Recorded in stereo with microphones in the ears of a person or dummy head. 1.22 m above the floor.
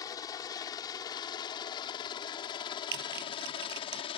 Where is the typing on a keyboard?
60° right (ahead or behind).